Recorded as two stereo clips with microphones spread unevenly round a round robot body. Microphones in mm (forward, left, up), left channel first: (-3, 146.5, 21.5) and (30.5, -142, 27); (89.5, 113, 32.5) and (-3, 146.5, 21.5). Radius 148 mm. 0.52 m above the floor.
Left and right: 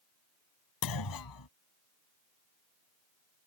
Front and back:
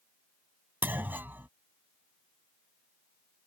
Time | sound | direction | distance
0.8 | a clunk | 90° left | ?